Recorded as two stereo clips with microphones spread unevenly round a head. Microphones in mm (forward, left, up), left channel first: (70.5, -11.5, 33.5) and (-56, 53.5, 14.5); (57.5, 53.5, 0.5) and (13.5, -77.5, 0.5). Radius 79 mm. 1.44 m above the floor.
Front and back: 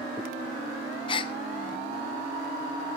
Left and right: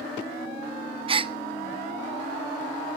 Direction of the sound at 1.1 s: 70° right.